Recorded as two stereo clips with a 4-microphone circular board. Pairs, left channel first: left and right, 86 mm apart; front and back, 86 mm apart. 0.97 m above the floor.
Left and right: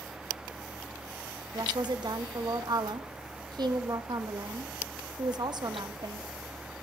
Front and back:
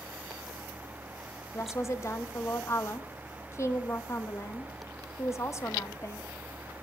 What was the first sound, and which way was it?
A woman speaking, 55° right.